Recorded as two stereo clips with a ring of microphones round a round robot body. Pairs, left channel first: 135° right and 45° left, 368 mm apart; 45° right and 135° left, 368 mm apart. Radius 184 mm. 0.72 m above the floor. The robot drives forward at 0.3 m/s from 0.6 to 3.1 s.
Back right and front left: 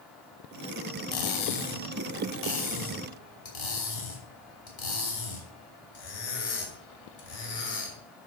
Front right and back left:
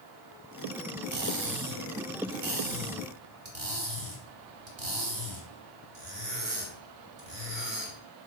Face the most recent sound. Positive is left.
turn(degrees=-170)